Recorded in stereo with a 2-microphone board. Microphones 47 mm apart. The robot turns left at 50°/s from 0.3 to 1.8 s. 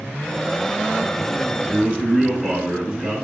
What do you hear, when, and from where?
1.7 s a man speaking: 20° right (ahead or behind), 1.1 m